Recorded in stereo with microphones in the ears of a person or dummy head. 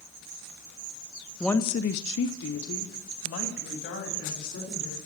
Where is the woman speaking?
5° right (ahead or behind), 0.6 m; by 5.0 s 70° left (ahead or behind), 4 m.